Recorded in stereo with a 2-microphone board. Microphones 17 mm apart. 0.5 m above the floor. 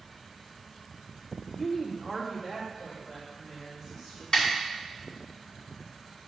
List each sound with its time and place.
1.6 s a woman speaking: 15° left (ahead or behind), 0.8 m; by 4.2 s 15° right (ahead or behind), 4 m
4.3 s a snare drum: 45° left (ahead or behind), 2.5 m